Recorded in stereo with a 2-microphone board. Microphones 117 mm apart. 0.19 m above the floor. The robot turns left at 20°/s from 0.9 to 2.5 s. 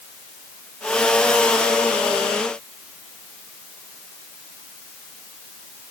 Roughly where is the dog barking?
I don't hear a dog barking.